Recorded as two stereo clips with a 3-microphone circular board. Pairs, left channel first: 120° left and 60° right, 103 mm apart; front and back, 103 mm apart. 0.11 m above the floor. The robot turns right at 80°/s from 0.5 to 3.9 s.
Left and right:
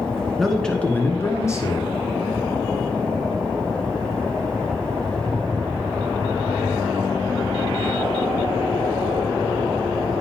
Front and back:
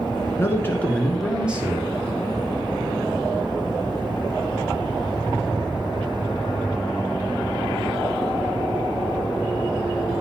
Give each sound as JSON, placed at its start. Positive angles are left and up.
{"t": 0.4, "sound": "a man speaking", "azimuth_deg": 30, "distance_m": 1.5}